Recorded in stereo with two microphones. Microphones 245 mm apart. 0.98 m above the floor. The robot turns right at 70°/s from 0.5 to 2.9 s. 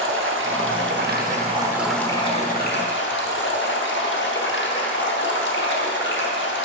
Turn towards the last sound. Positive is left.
turn(degrees=70)